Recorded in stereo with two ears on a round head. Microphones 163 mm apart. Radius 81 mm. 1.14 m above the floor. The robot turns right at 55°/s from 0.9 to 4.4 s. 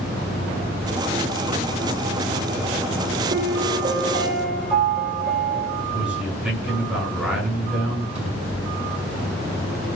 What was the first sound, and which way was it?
A piano, 60° right.